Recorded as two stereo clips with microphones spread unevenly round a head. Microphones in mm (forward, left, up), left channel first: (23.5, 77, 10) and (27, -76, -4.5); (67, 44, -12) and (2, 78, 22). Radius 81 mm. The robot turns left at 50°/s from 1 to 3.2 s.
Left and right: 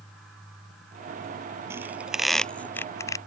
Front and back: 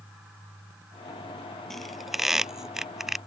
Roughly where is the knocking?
I don't hear knocking.